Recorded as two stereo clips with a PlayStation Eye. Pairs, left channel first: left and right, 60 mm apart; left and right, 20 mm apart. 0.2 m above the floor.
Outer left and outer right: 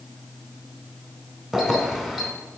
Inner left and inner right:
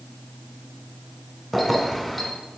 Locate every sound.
1.5 s keys jangling: 5° right (ahead or behind), 1.2 m